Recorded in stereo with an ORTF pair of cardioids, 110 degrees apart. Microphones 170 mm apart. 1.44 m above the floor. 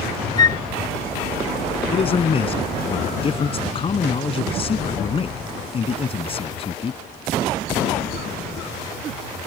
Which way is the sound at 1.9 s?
35° left.